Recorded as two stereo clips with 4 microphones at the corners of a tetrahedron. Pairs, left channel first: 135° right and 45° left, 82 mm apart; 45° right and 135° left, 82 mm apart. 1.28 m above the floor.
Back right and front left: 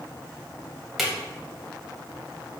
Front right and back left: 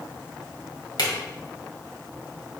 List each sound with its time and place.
1.0 s a drawer: 45° right, 1.9 m